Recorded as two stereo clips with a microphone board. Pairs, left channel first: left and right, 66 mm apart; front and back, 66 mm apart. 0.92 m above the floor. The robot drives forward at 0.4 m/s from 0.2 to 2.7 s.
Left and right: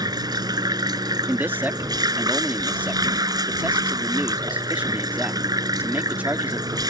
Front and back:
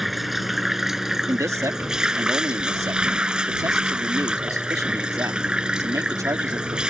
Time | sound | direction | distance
0.0 | running water | 90° right | ?
1.3 | a man speaking | 145° right | ?